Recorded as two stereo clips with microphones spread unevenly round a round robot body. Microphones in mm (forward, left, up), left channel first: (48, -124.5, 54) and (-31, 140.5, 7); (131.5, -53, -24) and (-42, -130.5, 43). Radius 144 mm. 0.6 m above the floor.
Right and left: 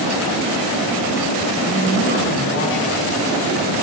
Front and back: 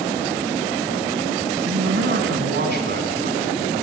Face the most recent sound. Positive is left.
turn(degrees=-120)